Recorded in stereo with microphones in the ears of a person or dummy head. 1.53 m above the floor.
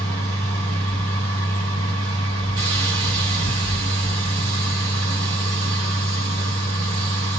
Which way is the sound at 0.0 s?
35° right (ahead or behind).